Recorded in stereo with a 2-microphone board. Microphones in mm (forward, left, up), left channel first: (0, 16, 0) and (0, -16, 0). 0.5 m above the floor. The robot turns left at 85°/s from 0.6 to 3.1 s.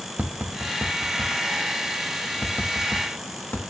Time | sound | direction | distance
0.2 | tapping | 60° right (ahead or behind) | 0.7 m